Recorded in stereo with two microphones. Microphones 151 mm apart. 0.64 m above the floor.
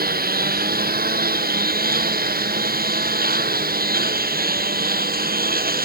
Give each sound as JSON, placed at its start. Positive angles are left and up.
{"t": 0.0, "sound": "a lawn mower", "side_deg": -90}